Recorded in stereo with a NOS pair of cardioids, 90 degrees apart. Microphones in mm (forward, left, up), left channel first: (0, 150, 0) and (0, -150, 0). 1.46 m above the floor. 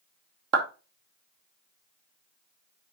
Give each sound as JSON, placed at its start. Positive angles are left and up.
{"t": 0.5, "sound": "a clap", "azimuth_deg": -55, "distance_m": 2.5}